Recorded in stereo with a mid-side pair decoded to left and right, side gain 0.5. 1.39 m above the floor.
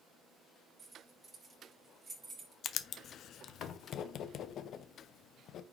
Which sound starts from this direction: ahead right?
Keys jangling, at 0.8 s.